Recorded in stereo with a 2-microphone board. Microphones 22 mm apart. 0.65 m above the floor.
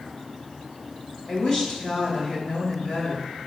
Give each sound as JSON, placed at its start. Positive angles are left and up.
{"t": 1.3, "sound": "a woman speaking", "side_deg": 35, "distance_m": 2.5}